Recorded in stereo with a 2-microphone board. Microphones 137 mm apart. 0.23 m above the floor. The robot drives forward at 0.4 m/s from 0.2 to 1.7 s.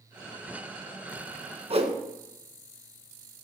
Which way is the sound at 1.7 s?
45° right (ahead or behind).